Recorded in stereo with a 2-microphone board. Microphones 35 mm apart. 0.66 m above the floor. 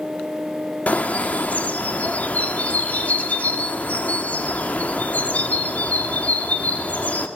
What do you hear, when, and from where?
0.9 s a bird: 45° left (ahead or behind), 1.6 m